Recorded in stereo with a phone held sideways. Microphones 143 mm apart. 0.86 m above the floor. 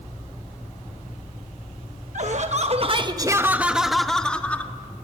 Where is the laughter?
55° right (ahead or behind), 1.0 m; by 4.7 s 10° left (ahead or behind), 1.7 m.